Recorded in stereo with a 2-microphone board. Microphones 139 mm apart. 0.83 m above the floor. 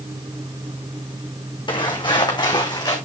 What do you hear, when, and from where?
1.7 s footsteps: 40° left (ahead or behind), 3 m; by 3.0 s 30° left (ahead or behind), 3.5 m